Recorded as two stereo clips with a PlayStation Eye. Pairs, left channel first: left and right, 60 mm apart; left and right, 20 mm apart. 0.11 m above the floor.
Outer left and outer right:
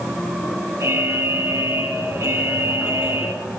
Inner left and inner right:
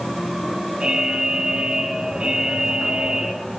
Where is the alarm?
55° right (ahead or behind), 4 m.